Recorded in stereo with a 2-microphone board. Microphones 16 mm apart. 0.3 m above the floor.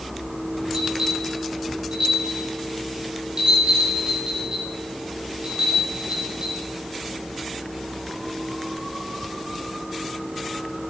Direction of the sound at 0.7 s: 70° right (ahead or behind).